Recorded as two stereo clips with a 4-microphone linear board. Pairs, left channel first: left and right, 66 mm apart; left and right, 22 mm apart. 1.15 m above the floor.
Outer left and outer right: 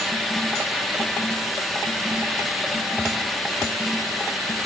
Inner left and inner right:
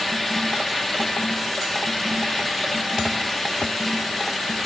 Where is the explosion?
No explosion in this recording.